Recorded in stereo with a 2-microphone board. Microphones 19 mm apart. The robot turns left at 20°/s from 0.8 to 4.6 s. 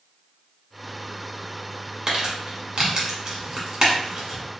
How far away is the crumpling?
About 1.3 m.